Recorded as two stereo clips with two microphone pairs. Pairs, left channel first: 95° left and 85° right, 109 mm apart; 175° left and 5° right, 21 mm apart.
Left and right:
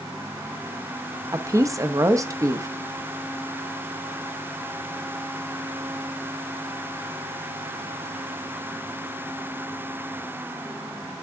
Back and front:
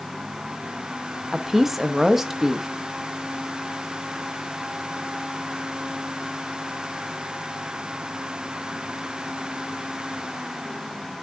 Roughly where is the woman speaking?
Ahead right.